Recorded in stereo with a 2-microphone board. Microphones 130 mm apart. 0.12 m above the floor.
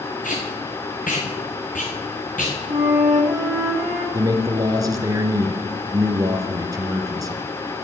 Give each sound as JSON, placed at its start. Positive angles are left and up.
{"t": 0.2, "sound": "tape being pulled", "side_deg": 80, "distance_m": 3.5}
{"t": 2.7, "sound": "a flute", "side_deg": -25, "distance_m": 7.5}
{"t": 4.1, "sound": "a man speaking", "side_deg": -25, "distance_m": 1.9}